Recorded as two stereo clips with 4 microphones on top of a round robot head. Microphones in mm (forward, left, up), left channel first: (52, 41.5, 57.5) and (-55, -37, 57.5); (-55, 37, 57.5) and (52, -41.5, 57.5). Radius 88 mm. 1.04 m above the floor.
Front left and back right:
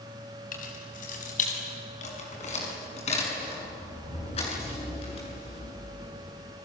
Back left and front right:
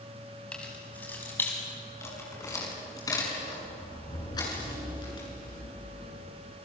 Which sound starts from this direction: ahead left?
Keys jangling, at 0.5 s.